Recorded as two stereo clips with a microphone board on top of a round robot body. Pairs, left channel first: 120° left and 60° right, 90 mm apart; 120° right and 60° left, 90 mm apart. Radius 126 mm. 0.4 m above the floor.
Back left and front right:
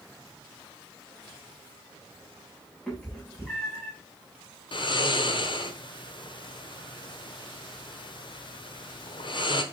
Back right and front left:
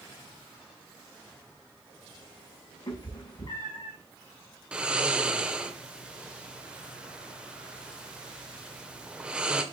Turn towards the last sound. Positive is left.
turn(degrees=140)